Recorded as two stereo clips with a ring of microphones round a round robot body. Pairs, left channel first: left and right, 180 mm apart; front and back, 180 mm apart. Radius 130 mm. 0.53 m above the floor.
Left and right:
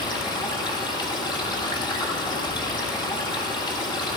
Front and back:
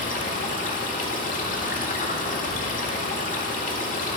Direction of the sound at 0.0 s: 30° left.